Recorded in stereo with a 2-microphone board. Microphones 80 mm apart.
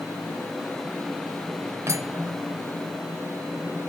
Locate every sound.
1.9 s cutlery clinking: 40° right (ahead or behind), 1.0 m